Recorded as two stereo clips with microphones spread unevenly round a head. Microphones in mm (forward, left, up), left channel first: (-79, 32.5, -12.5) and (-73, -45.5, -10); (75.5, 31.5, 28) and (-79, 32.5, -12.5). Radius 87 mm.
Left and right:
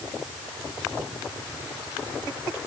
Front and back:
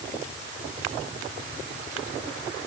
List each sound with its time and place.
Only background noise.